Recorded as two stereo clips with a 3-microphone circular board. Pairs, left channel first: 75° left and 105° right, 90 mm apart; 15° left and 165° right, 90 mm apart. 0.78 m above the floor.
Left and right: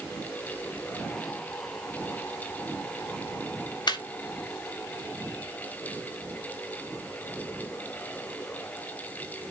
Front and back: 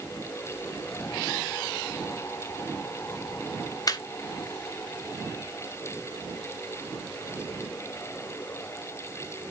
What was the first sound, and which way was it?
Laughter, 50° left.